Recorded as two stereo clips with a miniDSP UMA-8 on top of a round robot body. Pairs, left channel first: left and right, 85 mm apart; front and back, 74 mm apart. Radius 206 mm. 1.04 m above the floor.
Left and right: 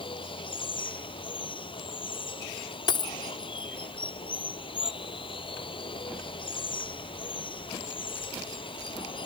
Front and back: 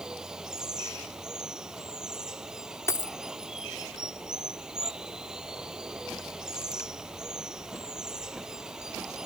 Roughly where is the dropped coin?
Ahead left.